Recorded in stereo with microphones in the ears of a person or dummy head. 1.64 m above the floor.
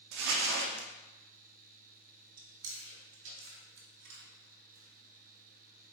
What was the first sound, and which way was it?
Crumpling, 60° right (ahead or behind).